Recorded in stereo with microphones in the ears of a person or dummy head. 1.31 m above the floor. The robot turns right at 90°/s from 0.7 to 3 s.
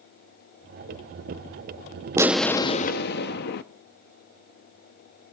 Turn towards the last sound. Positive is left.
turn(degrees=60)